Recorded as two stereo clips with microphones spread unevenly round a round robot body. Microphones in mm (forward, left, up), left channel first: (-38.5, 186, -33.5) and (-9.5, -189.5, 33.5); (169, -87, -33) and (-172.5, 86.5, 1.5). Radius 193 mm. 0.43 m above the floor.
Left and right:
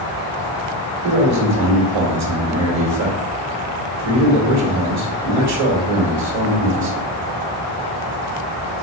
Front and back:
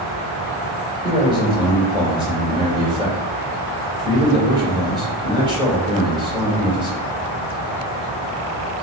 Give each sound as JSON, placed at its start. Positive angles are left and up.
{"t": 1.0, "sound": "a man speaking", "azimuth_deg": -125, "distance_m": 1.6}